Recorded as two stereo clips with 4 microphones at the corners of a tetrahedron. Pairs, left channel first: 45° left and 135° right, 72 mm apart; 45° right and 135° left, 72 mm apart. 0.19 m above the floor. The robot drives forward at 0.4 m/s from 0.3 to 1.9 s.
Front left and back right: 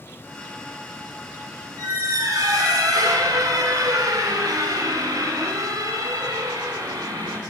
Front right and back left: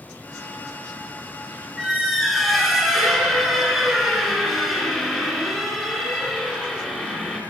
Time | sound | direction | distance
1.8 | a squeak | 135° right | 1.0 m